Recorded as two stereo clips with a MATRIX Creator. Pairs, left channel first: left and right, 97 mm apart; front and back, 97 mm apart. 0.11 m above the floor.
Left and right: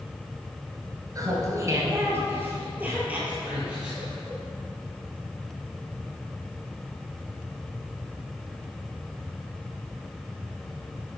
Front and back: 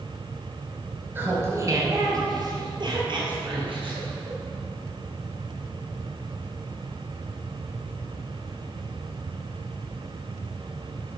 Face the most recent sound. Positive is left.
turn(degrees=-175)